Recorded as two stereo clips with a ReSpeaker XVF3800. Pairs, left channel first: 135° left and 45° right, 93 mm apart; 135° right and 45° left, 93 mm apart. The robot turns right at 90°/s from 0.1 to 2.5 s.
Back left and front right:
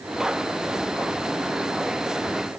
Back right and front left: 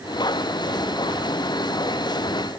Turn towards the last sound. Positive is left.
No sound to turn to.